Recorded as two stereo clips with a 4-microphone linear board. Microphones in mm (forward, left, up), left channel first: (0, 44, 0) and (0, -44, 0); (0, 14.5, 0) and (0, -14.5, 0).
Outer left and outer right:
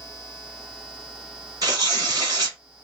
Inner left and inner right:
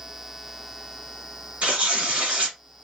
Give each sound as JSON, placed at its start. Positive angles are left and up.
{"t": 1.6, "sound": "tearing paper", "side_deg": -45, "distance_m": 1.5}